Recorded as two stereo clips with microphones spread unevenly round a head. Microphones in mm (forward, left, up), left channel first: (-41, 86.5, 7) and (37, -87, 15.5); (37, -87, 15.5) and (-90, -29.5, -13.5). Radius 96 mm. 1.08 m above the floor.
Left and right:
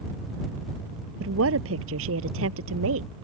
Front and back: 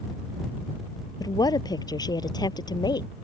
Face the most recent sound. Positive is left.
turn(degrees=-85)